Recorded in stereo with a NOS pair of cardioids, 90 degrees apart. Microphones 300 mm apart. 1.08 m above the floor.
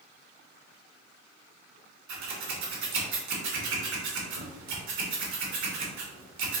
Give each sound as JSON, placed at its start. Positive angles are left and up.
{"t": 2.1, "sound": "scissors", "azimuth_deg": -70, "distance_m": 1.2}